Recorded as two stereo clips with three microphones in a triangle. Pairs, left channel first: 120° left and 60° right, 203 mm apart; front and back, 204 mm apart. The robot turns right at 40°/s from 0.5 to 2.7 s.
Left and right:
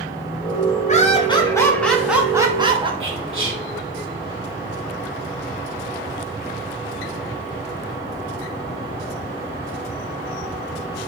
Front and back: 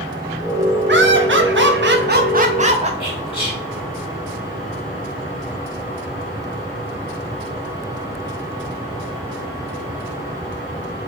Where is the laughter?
165° left, 0.5 m; by 2.9 s 120° right, 0.5 m.